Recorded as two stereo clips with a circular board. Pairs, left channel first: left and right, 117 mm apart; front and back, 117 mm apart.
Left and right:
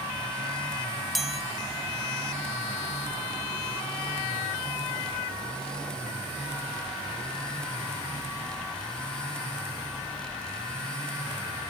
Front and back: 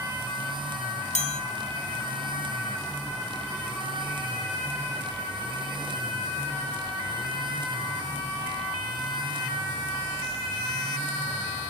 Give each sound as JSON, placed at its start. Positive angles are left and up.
{"t": 1.1, "sound": "a chime", "azimuth_deg": 0, "distance_m": 1.1}